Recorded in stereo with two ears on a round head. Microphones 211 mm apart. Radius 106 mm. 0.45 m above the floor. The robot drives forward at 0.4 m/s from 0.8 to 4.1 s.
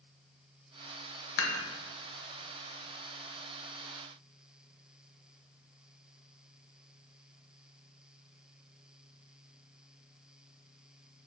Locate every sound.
1.4 s dishes clattering: 60° left (ahead or behind), 1.4 m